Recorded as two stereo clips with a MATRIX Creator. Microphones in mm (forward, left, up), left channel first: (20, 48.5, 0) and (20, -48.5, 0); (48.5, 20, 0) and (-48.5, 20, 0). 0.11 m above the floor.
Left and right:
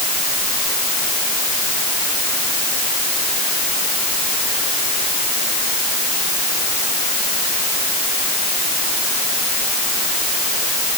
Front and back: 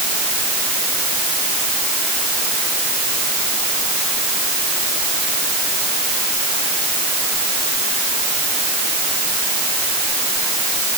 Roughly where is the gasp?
I don't hear a gasp.